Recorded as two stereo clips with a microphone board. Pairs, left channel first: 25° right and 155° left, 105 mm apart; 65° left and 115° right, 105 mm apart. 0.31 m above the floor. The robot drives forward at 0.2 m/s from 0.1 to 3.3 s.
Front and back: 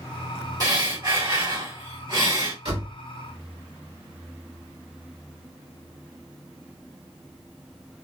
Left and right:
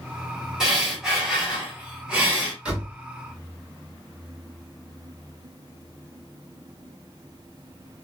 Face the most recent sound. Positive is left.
turn(degrees=170)